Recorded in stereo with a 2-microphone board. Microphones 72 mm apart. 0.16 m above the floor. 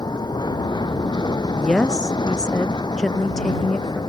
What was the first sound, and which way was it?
An aircraft, 75° left (ahead or behind).